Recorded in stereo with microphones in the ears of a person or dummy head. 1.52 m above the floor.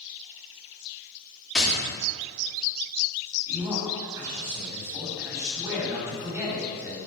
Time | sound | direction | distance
1.6 | tapping | 5° left (ahead or behind) | 3.5 m
3.5 | a man speaking | 15° right (ahead or behind) | 3.5 m